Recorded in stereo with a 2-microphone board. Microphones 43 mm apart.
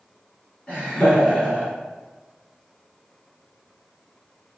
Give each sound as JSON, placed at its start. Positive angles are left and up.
{"t": 0.7, "sound": "laughter", "side_deg": 25, "distance_m": 1.3}